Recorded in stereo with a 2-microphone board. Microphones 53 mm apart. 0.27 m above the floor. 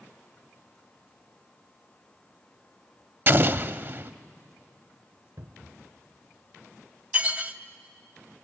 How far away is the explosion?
About 0.5 m.